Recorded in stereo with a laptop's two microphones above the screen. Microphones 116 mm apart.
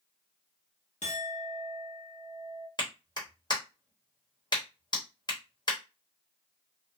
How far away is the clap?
About 0.9 m.